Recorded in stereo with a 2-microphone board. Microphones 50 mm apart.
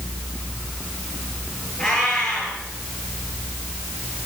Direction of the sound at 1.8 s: 20° left (ahead or behind).